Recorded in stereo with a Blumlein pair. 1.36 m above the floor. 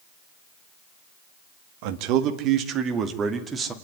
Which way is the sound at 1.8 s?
45° right.